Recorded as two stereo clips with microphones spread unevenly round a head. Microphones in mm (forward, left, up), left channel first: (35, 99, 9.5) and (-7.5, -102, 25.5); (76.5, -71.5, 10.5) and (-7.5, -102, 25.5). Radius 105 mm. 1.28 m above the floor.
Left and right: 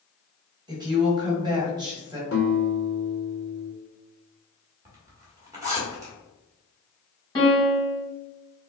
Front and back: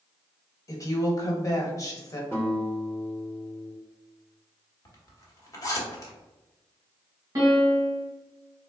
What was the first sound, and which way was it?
A woman speaking, 30° right.